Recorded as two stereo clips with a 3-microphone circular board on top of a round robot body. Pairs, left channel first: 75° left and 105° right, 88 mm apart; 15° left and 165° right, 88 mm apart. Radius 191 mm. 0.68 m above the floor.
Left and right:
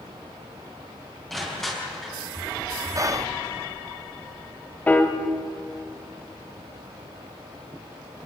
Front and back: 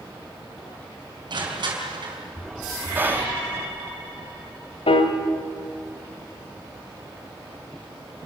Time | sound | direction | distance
1.3 | crushing | 160° left | 5 m
3.0 | whispering | 115° right | 0.8 m
4.9 | a piano | straight ahead | 1.6 m